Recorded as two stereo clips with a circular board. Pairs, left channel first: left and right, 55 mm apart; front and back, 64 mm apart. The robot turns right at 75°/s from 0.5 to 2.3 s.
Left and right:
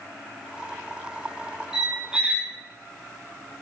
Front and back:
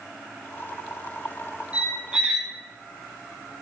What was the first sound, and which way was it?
A squeak, 160° right.